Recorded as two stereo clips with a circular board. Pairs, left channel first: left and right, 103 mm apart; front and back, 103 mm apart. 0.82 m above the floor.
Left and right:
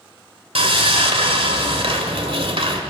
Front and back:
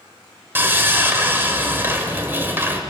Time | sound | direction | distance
0.6 | sawing | 110° right | 1.9 m